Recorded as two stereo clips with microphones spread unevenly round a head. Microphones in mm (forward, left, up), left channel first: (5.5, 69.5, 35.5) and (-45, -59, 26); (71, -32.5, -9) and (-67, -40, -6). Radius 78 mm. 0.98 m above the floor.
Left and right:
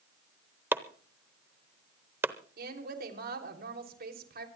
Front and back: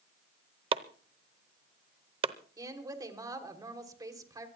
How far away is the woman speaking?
About 3 m.